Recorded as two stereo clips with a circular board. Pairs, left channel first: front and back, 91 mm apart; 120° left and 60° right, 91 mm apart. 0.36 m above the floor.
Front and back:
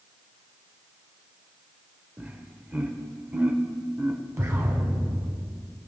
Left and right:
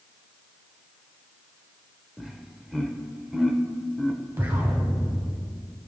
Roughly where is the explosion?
Behind right.